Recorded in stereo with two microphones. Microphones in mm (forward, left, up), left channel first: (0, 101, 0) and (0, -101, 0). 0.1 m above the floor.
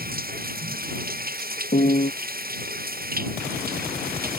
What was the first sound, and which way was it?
Running water, 50° right (ahead or behind).